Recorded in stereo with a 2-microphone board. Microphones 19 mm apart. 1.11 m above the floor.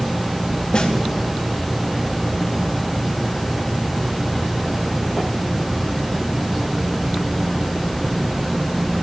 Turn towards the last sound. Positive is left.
turn(degrees=60)  # may be behind; listen again after turning